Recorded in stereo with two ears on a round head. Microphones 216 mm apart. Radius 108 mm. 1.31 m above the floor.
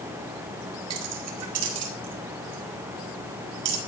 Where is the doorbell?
I don't hear a doorbell.